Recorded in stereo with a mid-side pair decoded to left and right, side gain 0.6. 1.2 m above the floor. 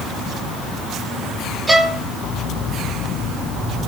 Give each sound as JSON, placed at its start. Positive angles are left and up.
{"t": 1.7, "sound": "a violin", "azimuth_deg": -15, "distance_m": 1.8}